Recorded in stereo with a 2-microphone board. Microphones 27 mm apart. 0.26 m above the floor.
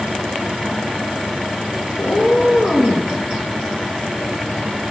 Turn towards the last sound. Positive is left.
turn(degrees=50)  # may be behind; listen again after turning